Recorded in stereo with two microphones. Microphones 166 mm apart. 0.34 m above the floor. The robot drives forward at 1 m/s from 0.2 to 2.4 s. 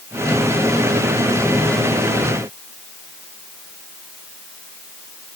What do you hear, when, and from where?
Only background noise.